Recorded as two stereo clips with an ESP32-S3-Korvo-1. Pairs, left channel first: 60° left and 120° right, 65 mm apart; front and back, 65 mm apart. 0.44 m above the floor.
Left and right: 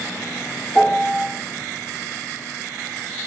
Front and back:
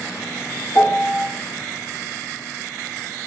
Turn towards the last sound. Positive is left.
turn(degrees=-5)